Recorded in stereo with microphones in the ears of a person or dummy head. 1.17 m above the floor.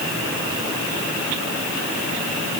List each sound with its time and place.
Only background noise.